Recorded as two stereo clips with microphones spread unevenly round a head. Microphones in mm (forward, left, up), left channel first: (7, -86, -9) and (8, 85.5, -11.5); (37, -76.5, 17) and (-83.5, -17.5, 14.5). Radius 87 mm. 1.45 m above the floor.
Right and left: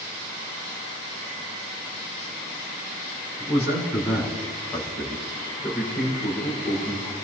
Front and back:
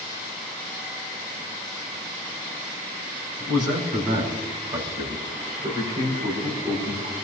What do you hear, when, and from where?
3.4 s a man speaking: 165° left, 9 m; by 7.2 s 155° right, 7 m